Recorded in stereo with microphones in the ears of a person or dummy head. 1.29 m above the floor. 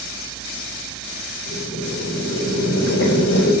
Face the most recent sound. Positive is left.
turn(degrees=75)  # may be behind; listen again after turning